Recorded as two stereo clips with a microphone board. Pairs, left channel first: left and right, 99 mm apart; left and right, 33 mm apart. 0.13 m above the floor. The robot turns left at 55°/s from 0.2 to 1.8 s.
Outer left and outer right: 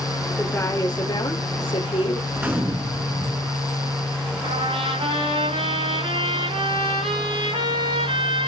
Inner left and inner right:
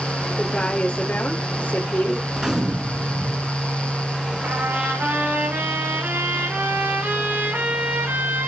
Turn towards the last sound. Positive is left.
turn(degrees=-85)